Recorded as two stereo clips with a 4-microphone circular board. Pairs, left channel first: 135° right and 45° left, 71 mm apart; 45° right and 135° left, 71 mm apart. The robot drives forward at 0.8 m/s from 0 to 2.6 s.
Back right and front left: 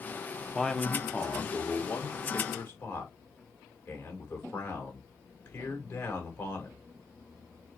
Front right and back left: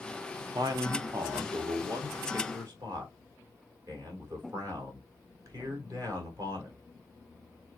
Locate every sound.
0.6 s a man speaking: 135° left, 0.9 m; by 6.8 s 165° left, 2.5 m